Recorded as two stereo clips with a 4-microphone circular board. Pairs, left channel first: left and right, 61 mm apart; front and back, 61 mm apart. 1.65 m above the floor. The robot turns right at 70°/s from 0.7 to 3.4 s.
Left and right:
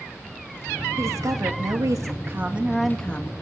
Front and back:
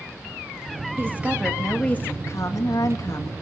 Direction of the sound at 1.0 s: 130° right.